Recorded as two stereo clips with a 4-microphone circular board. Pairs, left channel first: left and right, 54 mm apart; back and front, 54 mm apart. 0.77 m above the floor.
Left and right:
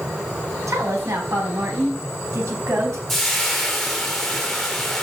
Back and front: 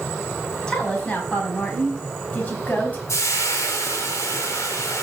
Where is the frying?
170° left, 3 m.